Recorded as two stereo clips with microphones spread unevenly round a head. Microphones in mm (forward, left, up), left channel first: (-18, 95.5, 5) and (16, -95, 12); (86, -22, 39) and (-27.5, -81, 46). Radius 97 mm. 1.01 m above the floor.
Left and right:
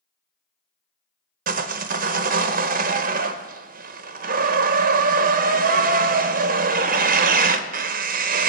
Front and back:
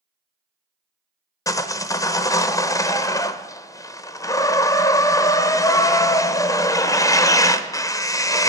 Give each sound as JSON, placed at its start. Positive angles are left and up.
{"t": 1.5, "sound": "sawing", "azimuth_deg": -35, "distance_m": 0.7}